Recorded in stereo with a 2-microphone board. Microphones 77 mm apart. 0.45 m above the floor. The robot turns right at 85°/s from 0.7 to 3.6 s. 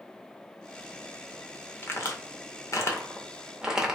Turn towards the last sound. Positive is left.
turn(degrees=-10)  # may be behind; listen again after turning